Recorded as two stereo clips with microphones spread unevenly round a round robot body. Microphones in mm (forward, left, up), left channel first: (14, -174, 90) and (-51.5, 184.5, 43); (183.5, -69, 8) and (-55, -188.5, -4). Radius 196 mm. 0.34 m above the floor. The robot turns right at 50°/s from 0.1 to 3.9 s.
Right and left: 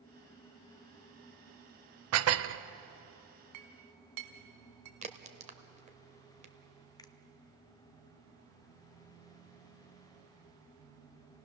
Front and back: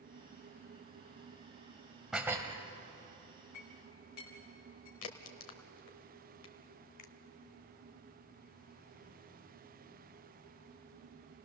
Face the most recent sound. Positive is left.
turn(degrees=5)